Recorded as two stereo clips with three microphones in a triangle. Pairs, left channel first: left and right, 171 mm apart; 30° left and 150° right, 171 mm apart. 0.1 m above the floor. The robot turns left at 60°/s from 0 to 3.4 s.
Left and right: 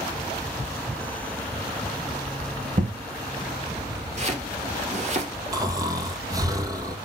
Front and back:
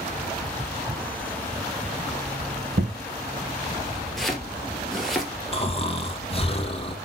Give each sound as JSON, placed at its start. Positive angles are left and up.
{"t": 2.8, "sound": "an explosion", "azimuth_deg": -130, "distance_m": 2.5}
{"t": 4.2, "sound": "chopping", "azimuth_deg": -60, "distance_m": 2.0}
{"t": 5.5, "sound": "snoring", "azimuth_deg": -25, "distance_m": 1.4}